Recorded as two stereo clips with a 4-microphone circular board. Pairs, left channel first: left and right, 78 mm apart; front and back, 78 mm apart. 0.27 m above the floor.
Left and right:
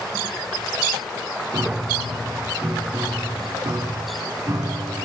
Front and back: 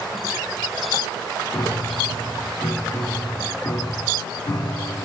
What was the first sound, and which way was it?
A piano, 50° right.